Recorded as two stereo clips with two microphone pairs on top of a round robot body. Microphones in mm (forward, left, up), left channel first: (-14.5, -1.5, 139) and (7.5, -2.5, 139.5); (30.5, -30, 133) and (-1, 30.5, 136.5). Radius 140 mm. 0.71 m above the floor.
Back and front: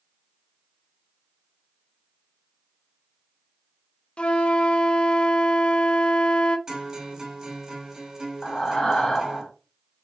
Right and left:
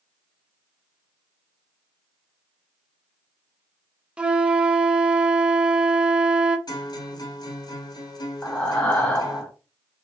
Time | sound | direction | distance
4.2 | a flute | 165° right | 0.7 m
6.7 | a guitar | 70° right | 2 m
8.4 | breathing | 135° right | 1.1 m